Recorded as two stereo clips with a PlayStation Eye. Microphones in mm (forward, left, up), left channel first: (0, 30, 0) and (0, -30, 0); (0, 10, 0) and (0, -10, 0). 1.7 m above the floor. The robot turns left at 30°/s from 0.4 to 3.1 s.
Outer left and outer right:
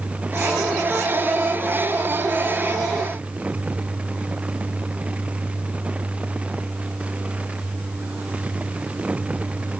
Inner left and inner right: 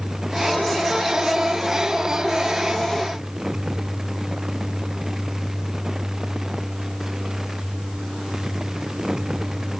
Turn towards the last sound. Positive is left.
No sound to turn to.